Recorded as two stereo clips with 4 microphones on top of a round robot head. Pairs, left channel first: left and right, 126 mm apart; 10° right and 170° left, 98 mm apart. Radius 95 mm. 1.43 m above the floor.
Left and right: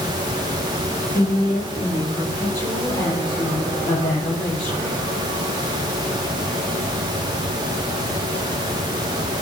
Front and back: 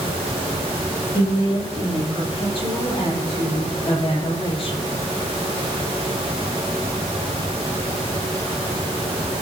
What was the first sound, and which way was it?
A woman speaking, 25° left.